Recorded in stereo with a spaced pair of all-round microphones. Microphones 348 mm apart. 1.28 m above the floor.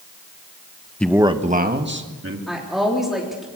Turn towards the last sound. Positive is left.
turn(degrees=0)  # may be behind; listen again after turning